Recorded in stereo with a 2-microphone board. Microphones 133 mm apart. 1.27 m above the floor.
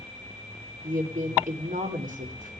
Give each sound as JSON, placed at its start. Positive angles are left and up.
{"t": 0.8, "sound": "a woman speaking", "side_deg": -70, "distance_m": 4.0}